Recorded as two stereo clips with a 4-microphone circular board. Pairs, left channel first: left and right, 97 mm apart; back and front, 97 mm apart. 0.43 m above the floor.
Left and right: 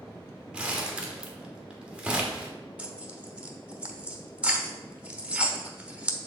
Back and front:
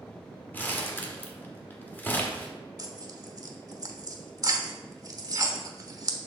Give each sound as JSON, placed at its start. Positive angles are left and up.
{"t": 0.5, "sound": "crumpling", "azimuth_deg": -150, "distance_m": 1.2}
{"t": 2.8, "sound": "tearing paper", "azimuth_deg": -20, "distance_m": 0.9}